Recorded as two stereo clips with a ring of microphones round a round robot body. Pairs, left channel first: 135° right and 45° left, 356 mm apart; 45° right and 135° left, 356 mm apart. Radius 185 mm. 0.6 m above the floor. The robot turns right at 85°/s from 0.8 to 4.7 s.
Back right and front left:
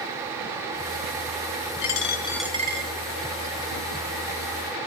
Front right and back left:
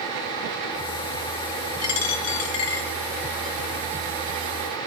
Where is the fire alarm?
I don't hear a fire alarm.